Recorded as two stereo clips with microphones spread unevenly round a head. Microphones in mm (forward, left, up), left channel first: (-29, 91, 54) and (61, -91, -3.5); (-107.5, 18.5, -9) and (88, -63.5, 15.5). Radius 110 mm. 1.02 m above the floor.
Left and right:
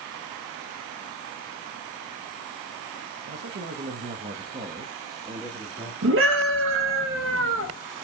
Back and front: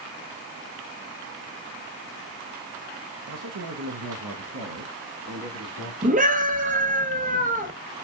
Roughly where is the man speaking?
Ahead right.